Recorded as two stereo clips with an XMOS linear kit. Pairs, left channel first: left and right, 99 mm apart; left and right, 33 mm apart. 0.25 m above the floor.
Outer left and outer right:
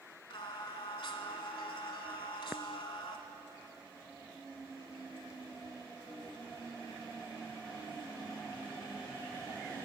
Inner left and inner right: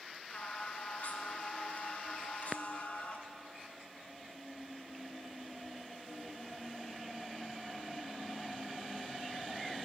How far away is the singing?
About 1.2 m.